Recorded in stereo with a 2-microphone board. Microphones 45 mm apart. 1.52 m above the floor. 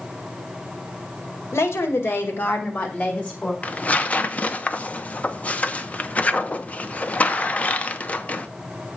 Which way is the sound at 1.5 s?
80° left.